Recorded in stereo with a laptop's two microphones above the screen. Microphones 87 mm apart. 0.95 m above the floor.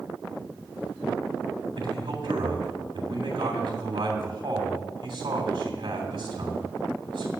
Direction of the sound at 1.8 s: 65° right (ahead or behind).